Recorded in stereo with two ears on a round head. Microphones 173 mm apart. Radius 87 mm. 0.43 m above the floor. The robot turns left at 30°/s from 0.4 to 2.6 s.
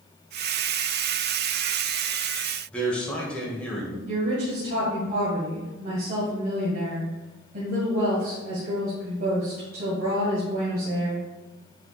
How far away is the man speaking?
About 2 m.